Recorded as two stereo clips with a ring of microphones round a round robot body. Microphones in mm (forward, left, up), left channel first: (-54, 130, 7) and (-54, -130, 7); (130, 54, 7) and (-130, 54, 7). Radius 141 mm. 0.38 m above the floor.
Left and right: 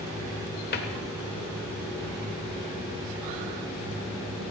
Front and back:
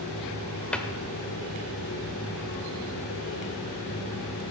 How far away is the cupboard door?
About 1.4 m.